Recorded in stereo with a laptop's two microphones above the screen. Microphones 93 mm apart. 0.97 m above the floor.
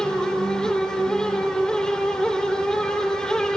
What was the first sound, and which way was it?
A fan, 5° left (ahead or behind).